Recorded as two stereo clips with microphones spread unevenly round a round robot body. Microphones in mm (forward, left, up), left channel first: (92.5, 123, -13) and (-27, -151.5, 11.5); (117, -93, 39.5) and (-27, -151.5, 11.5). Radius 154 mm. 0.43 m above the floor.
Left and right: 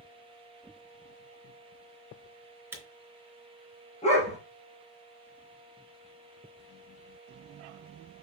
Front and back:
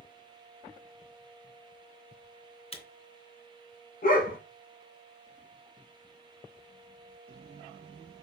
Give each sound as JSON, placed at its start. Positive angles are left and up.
{"t": 2.7, "sound": "a camera shutter", "azimuth_deg": -30, "distance_m": 3.5}
{"t": 4.0, "sound": "a dog barking", "azimuth_deg": -5, "distance_m": 3.0}